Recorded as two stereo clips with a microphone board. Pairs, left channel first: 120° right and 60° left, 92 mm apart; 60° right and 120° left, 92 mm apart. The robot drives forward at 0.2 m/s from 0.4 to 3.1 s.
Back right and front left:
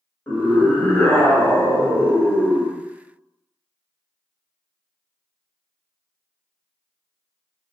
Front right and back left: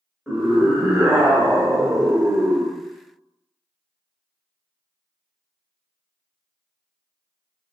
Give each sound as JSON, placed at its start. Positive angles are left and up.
{"t": 0.3, "sound": "a scream", "azimuth_deg": -160, "distance_m": 1.2}